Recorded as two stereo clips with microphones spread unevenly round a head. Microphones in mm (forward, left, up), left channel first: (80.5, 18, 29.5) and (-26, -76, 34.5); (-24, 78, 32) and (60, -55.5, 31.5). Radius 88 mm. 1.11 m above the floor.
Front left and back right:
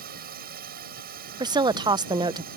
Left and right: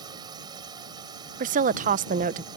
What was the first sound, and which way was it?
A drone, 125° right.